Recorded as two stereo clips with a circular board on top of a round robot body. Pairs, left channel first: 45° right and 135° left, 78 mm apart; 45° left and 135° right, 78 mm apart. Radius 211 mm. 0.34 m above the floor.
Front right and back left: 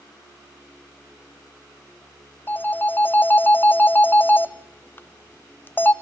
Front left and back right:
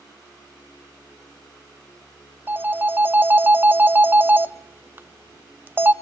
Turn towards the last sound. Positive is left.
turn(degrees=-90)